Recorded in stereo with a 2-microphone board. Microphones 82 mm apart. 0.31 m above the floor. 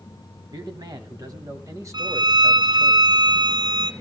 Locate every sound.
0.5 s a man speaking: 60° right (ahead or behind), 2.5 m; by 2.9 s 10° right (ahead or behind), 1.3 m
1.9 s a violin: 70° right (ahead or behind), 0.9 m